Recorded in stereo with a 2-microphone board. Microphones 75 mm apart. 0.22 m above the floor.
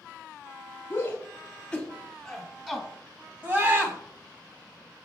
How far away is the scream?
About 1.5 m.